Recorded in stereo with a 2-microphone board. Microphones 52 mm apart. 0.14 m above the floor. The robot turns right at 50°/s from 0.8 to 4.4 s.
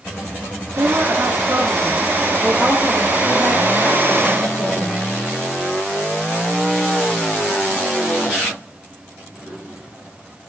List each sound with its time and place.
0.8 s a woman speaking: 90° right, 4.5 m; by 5.0 s 90° left, 4.5 m